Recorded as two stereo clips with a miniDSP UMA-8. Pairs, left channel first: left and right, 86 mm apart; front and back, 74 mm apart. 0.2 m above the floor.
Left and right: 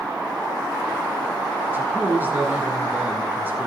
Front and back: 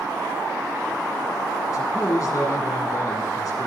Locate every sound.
1.7 s a man speaking: 30° right, 2.5 m